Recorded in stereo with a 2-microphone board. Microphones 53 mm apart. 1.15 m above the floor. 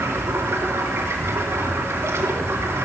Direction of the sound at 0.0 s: 60° right (ahead or behind).